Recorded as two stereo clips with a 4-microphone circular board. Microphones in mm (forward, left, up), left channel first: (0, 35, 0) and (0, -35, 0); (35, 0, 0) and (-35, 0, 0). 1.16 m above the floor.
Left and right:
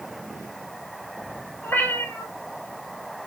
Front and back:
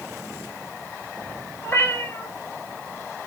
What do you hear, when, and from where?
1.6 s a cat meowing: 40° left, 1.8 m